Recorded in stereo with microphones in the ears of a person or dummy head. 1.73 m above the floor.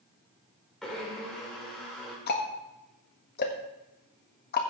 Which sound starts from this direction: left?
Ticking, at 2.3 s.